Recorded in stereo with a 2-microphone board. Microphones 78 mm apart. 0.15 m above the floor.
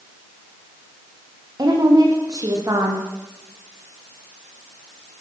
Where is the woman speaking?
50° right (ahead or behind), 7.5 m.